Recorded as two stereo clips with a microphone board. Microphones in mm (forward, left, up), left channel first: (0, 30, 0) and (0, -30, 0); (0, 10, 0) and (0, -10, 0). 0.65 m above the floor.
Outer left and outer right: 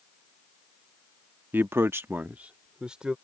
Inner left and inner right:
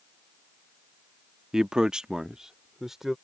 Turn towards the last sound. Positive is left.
turn(degrees=-15)  # may be behind; listen again after turning